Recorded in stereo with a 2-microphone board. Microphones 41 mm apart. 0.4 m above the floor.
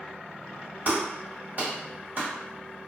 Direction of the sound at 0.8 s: 40° right (ahead or behind).